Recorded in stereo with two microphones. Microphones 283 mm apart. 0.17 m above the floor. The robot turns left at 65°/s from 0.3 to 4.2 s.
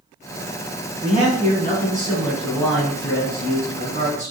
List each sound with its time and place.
1.0 s a man speaking: 25° right (ahead or behind), 1.7 m; by 4.3 s 20° left (ahead or behind), 1.7 m